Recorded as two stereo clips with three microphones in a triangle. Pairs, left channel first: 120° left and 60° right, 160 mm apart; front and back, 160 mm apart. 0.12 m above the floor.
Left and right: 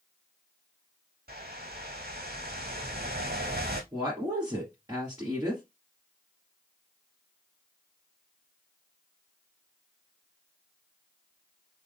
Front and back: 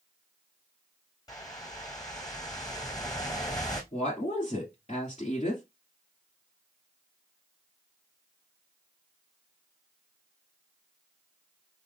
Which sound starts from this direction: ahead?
A woman speaking, at 3.9 s.